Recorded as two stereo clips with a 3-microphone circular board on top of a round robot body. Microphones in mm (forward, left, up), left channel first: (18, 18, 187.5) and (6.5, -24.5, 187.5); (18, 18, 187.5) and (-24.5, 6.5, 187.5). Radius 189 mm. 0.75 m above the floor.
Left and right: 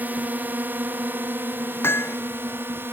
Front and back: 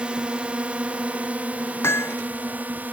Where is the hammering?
40° left.